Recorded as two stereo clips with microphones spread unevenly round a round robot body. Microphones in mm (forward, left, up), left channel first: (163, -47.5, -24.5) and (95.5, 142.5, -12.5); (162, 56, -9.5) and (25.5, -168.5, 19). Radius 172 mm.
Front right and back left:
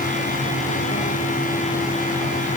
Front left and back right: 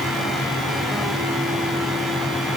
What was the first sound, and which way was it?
Only background noise.